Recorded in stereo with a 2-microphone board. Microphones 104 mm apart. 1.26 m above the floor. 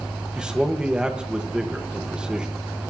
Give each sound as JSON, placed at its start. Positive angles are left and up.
{"t": 0.3, "sound": "a man speaking", "side_deg": -10, "distance_m": 1.5}